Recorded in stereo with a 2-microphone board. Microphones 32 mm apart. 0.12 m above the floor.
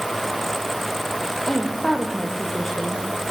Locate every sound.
1.5 s a woman speaking: 5° left (ahead or behind), 5 m; by 3.1 s 10° left (ahead or behind), 6 m